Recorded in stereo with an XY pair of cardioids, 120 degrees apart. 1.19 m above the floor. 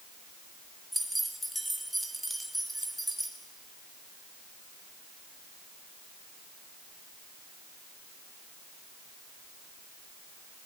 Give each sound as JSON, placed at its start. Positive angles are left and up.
{"t": 0.9, "sound": "keys jangling", "azimuth_deg": 0, "distance_m": 2.5}